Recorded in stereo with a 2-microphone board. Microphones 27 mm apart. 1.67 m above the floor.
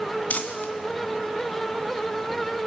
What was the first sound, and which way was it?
Crumpling, 55° left (ahead or behind).